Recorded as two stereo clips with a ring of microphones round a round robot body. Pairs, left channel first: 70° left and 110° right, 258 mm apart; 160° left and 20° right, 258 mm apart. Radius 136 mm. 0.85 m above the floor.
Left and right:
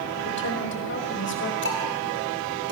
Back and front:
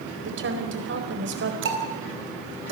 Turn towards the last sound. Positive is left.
turn(degrees=20)